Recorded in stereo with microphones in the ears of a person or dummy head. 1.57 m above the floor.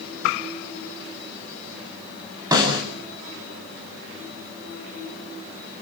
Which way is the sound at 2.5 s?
25° right (ahead or behind).